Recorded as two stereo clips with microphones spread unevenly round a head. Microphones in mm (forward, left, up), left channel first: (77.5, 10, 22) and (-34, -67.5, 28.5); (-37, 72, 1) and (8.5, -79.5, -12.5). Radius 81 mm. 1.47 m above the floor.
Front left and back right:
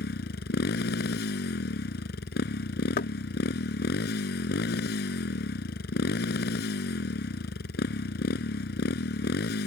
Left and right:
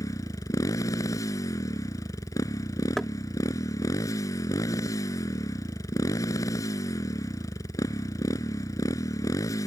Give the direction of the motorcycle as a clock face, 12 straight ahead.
11 o'clock.